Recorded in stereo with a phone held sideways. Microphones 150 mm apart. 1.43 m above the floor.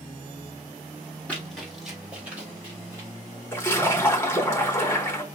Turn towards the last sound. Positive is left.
turn(degrees=15)  # may be behind; listen again after turning